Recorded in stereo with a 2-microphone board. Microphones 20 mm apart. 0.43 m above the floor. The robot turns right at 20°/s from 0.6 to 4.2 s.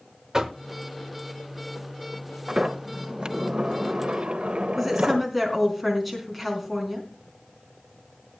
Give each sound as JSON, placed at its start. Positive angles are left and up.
{"t": 0.3, "sound": "knocking", "side_deg": -35, "distance_m": 1.1}
{"t": 2.5, "sound": "a sliding door", "azimuth_deg": -145, "distance_m": 0.8}
{"t": 4.8, "sound": "a woman speaking", "side_deg": -5, "distance_m": 4.0}